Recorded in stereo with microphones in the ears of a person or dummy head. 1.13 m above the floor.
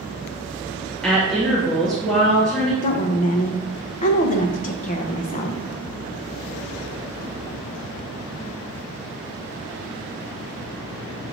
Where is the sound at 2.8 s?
40° left (ahead or behind), 0.6 m.